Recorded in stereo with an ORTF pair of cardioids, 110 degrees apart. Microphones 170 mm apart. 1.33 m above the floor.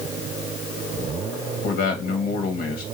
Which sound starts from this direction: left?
A man speaking, at 1.6 s.